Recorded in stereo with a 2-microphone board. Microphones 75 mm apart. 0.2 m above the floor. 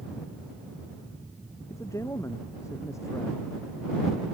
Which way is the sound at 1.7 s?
40° left (ahead or behind).